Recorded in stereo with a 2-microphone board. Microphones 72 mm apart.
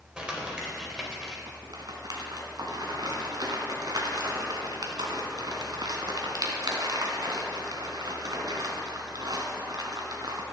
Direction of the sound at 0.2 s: 10° right (ahead or behind).